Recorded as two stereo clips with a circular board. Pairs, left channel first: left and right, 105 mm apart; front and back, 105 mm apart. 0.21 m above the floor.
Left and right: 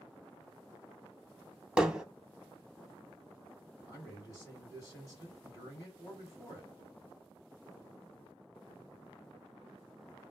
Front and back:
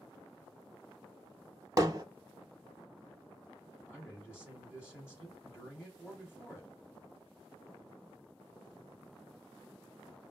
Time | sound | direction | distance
1.8 | hammering | 165° right | 0.5 m
3.9 | a man speaking | 55° left | 2 m